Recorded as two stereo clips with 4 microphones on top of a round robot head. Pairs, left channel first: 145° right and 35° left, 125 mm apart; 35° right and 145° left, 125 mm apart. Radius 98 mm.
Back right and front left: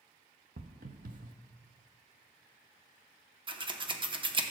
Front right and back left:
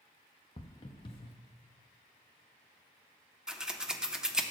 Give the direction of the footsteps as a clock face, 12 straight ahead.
11 o'clock.